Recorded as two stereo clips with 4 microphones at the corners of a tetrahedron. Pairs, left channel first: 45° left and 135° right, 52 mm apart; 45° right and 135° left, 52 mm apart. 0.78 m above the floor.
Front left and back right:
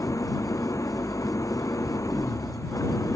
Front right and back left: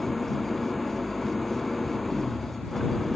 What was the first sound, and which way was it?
An engine running, 45° left.